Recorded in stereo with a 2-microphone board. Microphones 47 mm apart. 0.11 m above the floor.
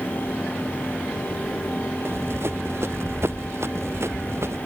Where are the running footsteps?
55° right (ahead or behind); by 4.6 s 65° right (ahead or behind).